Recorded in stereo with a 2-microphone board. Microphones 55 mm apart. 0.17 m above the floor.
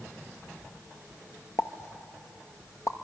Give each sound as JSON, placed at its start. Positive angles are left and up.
{"t": 1.6, "sound": "a pop", "side_deg": 65, "distance_m": 0.8}